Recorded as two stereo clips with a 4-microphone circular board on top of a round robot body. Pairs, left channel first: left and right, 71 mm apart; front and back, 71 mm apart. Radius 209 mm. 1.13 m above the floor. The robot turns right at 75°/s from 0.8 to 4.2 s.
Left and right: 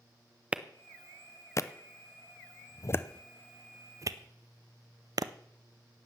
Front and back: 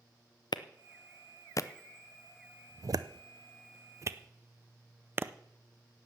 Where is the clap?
15° right, 0.7 m; by 5.3 s 120° right, 0.7 m.